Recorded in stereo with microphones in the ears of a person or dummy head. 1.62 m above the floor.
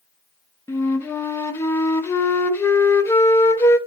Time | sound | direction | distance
0.7 | a flute | 15° left (ahead or behind) | 0.7 m